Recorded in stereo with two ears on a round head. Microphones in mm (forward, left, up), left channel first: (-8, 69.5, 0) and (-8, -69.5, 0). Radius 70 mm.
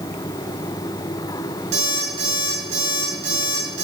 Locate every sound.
1.7 s an alarm clock: 45° right (ahead or behind), 6.5 m